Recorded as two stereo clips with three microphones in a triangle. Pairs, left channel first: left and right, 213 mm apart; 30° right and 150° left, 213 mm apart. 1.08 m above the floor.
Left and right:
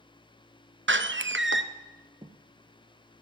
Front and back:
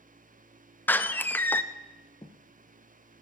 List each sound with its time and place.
0.9 s a door slam: 110° right, 0.7 m
2.2 s footsteps: 60° right, 1.1 m